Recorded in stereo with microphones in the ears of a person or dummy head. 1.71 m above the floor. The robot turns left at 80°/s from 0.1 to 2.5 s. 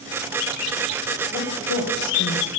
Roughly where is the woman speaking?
Left.